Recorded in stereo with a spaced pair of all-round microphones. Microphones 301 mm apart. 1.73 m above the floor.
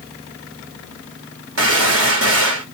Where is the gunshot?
50° right (ahead or behind), 1.4 m.